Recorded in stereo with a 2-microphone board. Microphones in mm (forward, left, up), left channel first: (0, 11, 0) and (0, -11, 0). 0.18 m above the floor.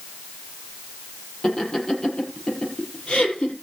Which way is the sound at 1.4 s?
30° left (ahead or behind).